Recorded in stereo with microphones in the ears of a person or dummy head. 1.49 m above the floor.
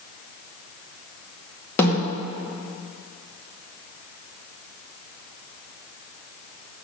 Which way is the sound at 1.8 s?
20° left (ahead or behind).